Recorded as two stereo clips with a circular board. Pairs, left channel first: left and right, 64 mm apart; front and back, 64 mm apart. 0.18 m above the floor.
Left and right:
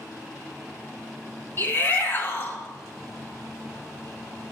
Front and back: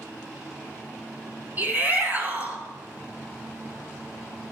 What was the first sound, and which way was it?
A shout, 130° left.